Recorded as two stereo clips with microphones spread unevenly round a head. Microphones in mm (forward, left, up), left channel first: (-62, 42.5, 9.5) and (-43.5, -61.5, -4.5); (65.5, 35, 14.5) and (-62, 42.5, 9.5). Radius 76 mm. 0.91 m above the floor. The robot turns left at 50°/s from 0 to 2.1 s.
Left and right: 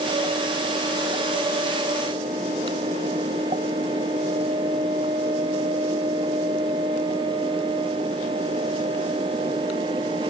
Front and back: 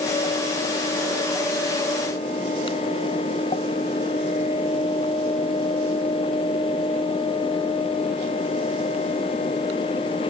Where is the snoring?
I don't hear snoring.